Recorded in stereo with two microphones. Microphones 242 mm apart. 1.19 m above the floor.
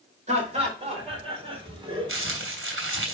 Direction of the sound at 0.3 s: 30° right (ahead or behind).